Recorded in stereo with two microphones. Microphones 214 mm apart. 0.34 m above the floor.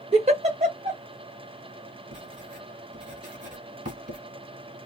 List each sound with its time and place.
0.1 s a giggle: 30° right (ahead or behind), 1.2 m
2.1 s writing: 40° right (ahead or behind), 1.8 m